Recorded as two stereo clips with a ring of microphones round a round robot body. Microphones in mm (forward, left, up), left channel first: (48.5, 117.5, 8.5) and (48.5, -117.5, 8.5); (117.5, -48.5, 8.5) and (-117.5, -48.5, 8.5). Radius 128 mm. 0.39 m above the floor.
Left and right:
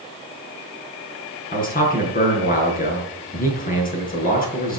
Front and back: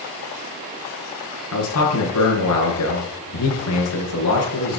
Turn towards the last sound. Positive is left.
turn(degrees=35)